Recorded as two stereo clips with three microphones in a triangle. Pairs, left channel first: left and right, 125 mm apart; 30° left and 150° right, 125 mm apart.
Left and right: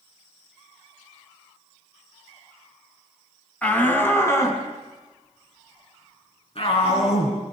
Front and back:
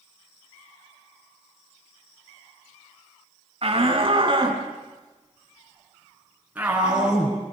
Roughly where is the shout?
Behind.